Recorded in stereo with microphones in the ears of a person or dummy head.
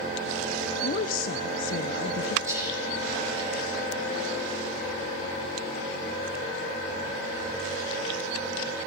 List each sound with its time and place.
0.8 s a woman speaking: 50° left (ahead or behind), 0.5 m
2.5 s whispering: 10° right (ahead or behind), 2 m